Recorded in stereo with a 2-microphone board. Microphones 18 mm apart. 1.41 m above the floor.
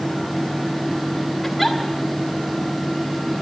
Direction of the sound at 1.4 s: 5° right (ahead or behind).